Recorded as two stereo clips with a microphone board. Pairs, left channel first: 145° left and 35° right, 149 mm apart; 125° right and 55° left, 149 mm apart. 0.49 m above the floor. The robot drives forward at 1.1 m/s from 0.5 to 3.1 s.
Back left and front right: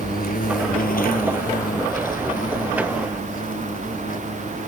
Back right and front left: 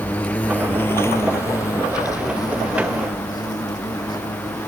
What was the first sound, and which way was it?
An insect, 155° left.